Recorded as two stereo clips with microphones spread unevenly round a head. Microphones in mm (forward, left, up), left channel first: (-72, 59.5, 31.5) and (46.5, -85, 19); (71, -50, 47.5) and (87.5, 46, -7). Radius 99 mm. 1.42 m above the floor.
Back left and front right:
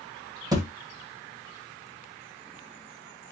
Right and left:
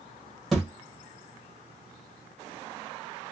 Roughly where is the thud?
Right.